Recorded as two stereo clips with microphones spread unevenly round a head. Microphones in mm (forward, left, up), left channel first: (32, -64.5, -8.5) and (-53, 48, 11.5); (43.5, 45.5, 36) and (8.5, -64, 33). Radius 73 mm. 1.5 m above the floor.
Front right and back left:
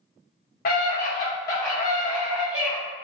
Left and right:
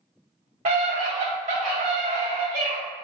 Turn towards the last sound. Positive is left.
turn(degrees=-155)